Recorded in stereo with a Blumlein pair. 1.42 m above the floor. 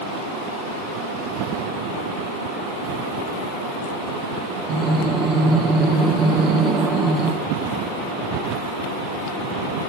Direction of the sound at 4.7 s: 25° right.